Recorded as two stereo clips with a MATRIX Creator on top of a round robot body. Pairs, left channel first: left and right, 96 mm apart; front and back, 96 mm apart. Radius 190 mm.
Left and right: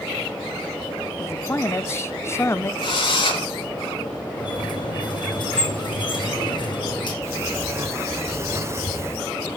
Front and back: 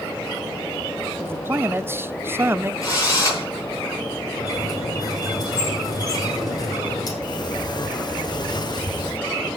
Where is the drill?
55° left, 9 m.